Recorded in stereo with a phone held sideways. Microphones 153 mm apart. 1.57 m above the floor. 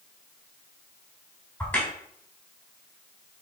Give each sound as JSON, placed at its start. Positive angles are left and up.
{"t": 1.6, "sound": "a crack", "side_deg": 15, "distance_m": 3.5}